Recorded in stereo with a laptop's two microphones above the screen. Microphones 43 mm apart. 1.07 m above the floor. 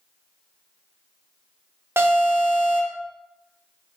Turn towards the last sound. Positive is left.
turn(degrees=-70)  # may be behind; listen again after turning